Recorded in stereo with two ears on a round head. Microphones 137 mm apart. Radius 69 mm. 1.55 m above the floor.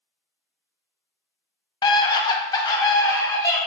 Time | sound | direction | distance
1.8 | a scream | 30° left (ahead or behind) | 0.7 m